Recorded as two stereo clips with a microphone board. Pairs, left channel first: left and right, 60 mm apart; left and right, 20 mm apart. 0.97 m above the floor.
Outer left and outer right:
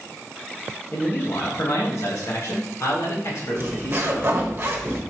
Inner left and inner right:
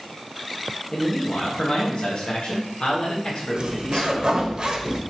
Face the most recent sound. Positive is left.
turn(degrees=-40)  # may be behind; listen again after turning